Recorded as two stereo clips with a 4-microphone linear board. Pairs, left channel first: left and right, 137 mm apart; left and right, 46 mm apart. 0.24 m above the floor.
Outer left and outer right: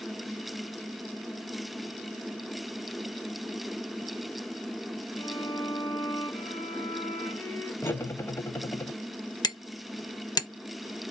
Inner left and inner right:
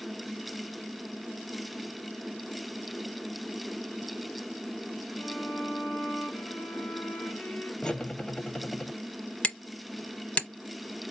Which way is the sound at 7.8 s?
20° left (ahead or behind).